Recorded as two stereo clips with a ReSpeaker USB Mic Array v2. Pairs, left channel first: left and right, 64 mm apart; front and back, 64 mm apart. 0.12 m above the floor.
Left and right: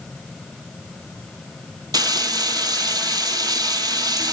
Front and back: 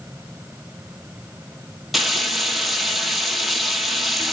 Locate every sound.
1.9 s frying: 95° right, 1.1 m